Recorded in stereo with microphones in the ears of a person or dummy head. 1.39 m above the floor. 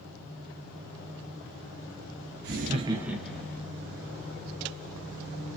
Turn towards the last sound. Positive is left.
turn(degrees=15)  # may be behind; listen again after turning